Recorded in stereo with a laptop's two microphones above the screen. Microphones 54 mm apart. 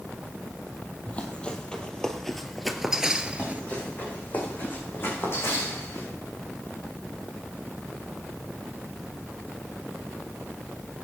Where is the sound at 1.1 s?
25° left (ahead or behind), 2 m; by 3.6 s 30° right (ahead or behind), 1.1 m.